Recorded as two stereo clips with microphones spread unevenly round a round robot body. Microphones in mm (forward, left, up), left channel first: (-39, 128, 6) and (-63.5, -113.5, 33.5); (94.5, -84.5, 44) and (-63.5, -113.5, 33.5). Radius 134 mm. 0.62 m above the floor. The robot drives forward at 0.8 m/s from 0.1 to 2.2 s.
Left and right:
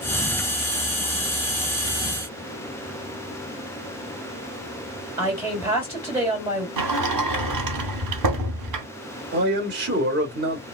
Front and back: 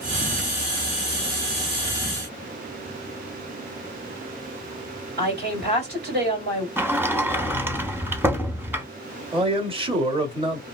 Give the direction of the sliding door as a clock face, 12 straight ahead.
3 o'clock.